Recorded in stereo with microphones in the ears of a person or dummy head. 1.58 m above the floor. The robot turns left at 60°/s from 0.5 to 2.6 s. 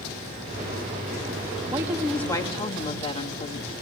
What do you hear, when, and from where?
1.7 s a woman speaking: 160° right, 2.5 m; by 3.7 s 145° left, 2.5 m